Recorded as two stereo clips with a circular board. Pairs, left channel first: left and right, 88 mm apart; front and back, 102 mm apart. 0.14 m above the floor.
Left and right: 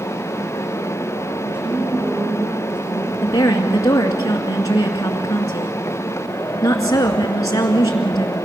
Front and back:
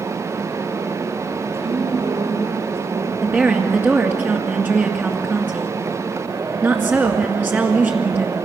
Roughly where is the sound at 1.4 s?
Behind.